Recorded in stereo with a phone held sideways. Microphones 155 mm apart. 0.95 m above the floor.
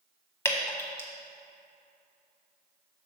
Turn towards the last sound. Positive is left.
turn(degrees=15)  # may be behind; listen again after turning